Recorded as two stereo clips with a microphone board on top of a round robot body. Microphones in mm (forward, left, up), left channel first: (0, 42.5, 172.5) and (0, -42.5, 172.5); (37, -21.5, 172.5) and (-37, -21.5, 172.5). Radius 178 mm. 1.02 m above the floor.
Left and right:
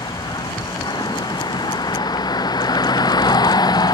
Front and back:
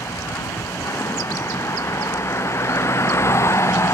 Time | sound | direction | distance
0.0 | a vehicle | 55° left | ?